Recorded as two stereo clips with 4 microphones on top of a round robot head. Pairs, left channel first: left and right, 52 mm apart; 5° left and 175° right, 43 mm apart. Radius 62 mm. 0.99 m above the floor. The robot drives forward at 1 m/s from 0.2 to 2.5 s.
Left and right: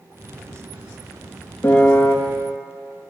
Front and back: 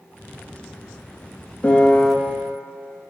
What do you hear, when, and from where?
1.6 s a piano: 55° left, 1.0 m; by 2.1 s 95° left, 0.9 m